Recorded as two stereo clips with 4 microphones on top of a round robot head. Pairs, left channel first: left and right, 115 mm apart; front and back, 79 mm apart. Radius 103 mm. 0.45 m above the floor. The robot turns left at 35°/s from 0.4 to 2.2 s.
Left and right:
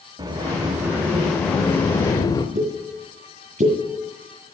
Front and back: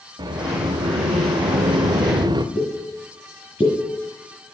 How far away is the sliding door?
About 0.7 m.